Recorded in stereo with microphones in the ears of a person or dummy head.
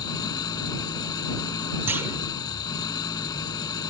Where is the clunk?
15° right (ahead or behind).